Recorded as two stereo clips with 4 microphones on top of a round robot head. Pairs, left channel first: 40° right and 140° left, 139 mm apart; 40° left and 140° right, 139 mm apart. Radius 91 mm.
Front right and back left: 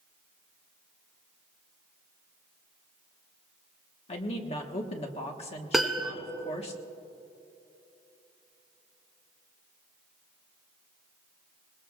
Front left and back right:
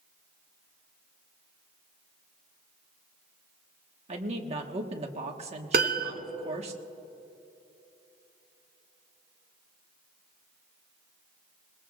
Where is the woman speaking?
90° right, 1.5 m.